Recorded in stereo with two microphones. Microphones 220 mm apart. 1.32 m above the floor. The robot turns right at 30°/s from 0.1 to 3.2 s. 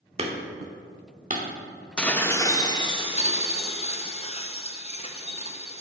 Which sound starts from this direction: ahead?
Dishes clattering, at 2.0 s.